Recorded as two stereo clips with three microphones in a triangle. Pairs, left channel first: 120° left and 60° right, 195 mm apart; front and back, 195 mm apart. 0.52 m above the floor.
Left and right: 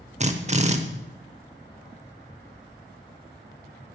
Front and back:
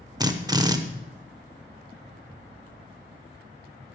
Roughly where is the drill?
Right.